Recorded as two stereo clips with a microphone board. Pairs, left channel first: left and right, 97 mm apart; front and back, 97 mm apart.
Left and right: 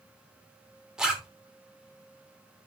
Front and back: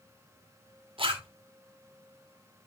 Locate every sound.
1.0 s a zipper: 175° right, 2.5 m